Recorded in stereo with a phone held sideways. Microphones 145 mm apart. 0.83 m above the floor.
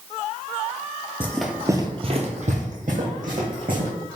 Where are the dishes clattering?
I don't hear dishes clattering.